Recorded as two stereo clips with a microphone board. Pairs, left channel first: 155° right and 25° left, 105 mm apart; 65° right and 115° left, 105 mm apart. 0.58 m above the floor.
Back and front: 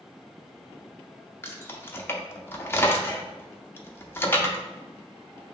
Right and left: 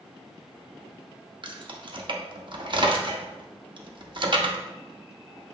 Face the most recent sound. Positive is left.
turn(degrees=140)